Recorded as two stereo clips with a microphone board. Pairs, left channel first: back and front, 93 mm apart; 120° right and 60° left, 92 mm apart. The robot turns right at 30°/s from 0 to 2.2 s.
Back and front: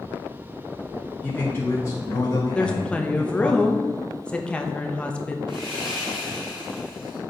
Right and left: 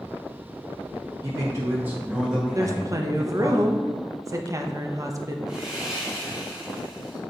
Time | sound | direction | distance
1.2 | a man speaking | 105° left | 1.1 m
2.5 | a woman speaking | 105° left | 0.7 m
5.5 | sawing | 25° right | 3 m